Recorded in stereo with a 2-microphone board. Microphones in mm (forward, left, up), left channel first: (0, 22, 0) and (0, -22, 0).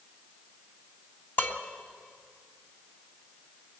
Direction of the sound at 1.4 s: 45° left (ahead or behind).